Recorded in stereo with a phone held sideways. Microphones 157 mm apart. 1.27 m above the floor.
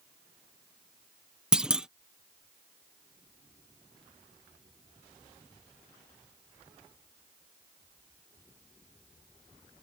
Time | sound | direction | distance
1.5 | a clunk | 5° right (ahead or behind) | ?